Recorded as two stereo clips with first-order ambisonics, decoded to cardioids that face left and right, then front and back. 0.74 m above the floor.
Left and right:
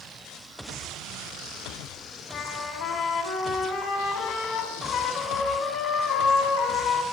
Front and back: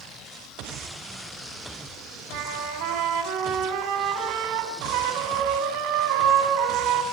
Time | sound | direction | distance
2.3 | a trumpet | 150° left | 5 m